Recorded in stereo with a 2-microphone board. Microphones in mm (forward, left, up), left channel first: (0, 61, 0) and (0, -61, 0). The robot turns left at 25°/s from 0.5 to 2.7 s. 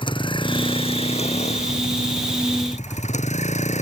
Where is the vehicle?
135° left; by 3.8 s 80° left.